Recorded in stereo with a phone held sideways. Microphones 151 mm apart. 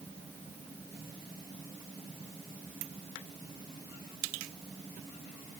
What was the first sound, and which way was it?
Only background noise.